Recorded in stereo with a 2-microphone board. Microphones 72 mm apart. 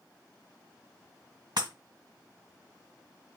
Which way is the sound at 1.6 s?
75° right (ahead or behind).